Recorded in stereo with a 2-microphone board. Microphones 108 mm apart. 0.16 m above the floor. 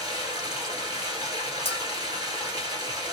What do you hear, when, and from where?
0.0 s running water: 40° right (ahead or behind), 1.5 m
1.6 s a bell: 65° left (ahead or behind), 0.6 m